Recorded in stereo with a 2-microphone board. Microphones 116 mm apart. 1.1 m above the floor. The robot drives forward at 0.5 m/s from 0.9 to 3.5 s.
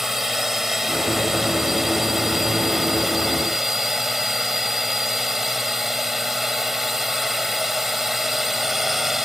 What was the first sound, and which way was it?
A drone, 5° right (ahead or behind).